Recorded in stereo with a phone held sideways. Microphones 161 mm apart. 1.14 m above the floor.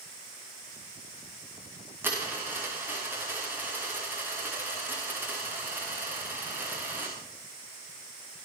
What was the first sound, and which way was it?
A dropped coin, 10° right (ahead or behind).